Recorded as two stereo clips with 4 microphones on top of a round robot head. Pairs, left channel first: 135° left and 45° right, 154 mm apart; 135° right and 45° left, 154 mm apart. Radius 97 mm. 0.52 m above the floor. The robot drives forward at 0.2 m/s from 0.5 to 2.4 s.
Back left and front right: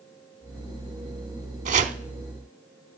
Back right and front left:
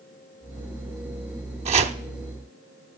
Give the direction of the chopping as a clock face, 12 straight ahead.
12 o'clock.